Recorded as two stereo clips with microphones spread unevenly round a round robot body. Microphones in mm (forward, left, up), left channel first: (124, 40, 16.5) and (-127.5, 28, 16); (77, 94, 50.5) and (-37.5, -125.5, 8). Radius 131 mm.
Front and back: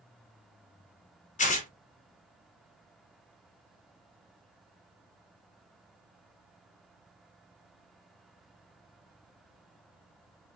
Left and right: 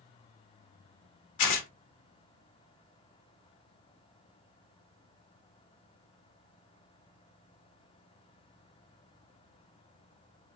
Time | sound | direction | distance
1.4 | tearing paper | 65° left | 0.9 m